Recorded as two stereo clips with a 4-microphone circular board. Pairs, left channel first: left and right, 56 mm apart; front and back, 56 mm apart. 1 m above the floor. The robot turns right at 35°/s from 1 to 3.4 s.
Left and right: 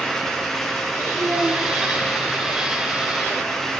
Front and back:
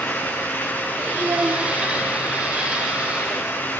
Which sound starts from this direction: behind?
A child speaking, at 1.2 s.